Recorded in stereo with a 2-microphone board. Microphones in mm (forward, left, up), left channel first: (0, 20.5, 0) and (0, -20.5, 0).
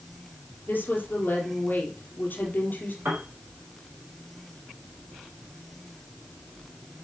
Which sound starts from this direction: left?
A woman speaking, at 0.7 s.